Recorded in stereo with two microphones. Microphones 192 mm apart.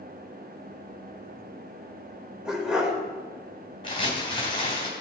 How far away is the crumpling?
About 3 m.